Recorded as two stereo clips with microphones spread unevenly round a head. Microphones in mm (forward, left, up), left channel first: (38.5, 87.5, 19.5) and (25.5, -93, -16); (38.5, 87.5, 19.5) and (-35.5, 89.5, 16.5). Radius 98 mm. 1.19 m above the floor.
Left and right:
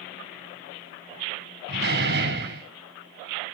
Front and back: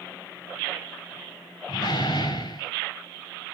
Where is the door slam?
60° right, 5.5 m.